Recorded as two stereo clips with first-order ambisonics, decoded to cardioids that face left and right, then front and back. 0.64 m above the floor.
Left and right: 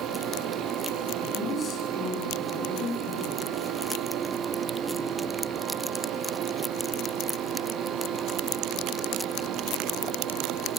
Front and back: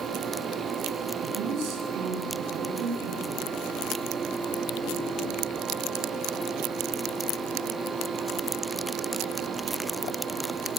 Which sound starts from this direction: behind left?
A woman speaking, at 1.2 s.